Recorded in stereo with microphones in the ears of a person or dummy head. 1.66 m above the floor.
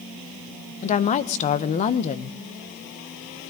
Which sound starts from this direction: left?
A woman speaking, at 0.8 s.